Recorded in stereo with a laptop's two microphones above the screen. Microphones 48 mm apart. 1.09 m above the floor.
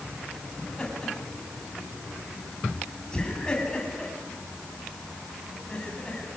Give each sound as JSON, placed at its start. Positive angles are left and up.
{"t": 0.6, "sound": "laughter", "side_deg": 15, "distance_m": 8.0}